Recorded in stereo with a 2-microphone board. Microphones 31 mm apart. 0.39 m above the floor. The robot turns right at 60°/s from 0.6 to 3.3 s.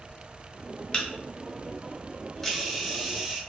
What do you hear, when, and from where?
0.9 s a camera shutter: 30° left (ahead or behind), 0.6 m; by 3.4 s 15° right (ahead or behind), 0.6 m